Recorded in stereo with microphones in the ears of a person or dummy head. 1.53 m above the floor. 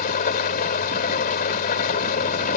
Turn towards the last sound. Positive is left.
turn(degrees=45)  # may be behind; listen again after turning